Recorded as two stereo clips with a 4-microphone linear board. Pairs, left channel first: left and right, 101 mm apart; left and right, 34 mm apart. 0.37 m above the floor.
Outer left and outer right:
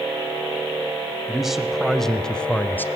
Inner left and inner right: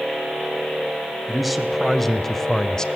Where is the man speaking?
5° right (ahead or behind), 2.5 m; by 2.9 s 20° left (ahead or behind), 1.3 m.